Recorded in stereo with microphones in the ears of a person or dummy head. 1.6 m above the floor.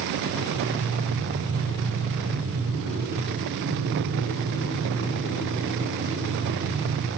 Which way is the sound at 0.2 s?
60° right (ahead or behind).